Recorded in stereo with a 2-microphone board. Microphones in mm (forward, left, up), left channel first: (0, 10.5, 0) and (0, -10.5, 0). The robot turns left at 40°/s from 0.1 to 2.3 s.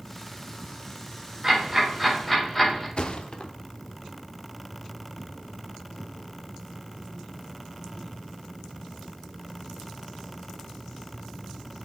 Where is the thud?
55° left (ahead or behind), 0.8 m.